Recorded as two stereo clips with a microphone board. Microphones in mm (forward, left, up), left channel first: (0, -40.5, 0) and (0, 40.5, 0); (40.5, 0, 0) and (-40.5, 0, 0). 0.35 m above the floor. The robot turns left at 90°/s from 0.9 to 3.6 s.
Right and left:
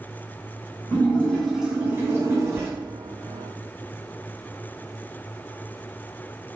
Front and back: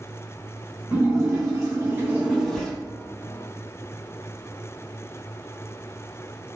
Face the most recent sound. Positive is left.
turn(degrees=-10)